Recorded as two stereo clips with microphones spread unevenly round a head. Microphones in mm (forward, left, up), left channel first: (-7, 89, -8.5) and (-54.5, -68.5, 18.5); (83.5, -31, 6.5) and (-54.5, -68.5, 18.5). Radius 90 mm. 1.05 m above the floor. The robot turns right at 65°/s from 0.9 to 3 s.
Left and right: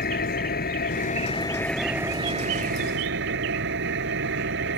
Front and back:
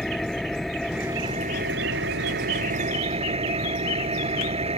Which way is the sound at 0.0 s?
105° left.